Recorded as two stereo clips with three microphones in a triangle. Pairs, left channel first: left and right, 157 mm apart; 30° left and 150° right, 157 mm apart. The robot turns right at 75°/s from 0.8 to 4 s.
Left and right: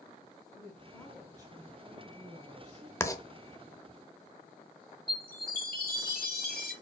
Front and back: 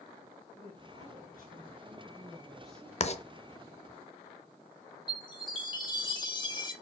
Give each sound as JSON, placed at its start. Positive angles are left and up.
{"t": 0.6, "sound": "a woman speaking", "azimuth_deg": 155, "distance_m": 2.0}
{"t": 3.0, "sound": "writing", "azimuth_deg": 25, "distance_m": 0.6}
{"t": 5.1, "sound": "a chime", "azimuth_deg": 90, "distance_m": 1.6}